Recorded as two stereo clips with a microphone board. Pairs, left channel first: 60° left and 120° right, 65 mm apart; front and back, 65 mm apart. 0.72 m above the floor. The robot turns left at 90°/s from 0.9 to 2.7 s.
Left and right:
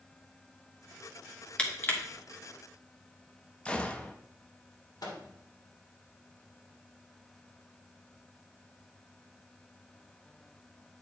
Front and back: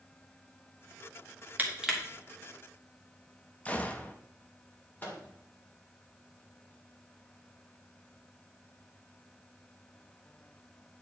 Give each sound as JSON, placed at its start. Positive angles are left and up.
{"t": 1.6, "sound": "crushing", "azimuth_deg": 130, "distance_m": 1.2}
{"t": 3.6, "sound": "a gunshot", "azimuth_deg": 20, "distance_m": 0.6}
{"t": 5.0, "sound": "a microwave", "azimuth_deg": 60, "distance_m": 1.7}